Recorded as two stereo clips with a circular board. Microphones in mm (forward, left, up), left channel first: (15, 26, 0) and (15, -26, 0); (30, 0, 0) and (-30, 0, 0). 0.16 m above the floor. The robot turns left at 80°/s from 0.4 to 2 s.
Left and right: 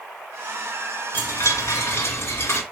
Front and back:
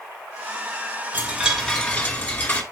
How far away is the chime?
About 2 m.